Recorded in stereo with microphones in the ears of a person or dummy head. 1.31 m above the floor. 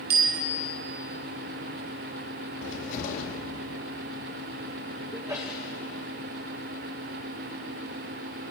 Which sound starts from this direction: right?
A bicycle bell, at 0.1 s.